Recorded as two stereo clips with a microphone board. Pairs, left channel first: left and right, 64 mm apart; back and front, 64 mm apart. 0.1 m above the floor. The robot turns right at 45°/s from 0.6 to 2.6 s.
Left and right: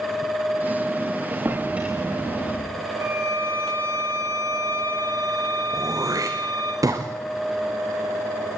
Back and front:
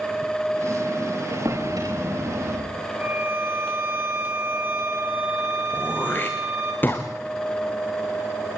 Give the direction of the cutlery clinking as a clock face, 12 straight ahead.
I don't hear cutlery clinking.